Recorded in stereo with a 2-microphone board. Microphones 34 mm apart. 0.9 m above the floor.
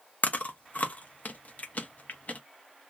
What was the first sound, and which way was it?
Chewing, 55° left (ahead or behind).